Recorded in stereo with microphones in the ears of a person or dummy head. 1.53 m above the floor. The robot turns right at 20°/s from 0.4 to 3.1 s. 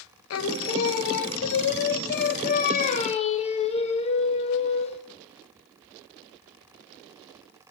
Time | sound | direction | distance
0.3 | singing | 90° left | 0.7 m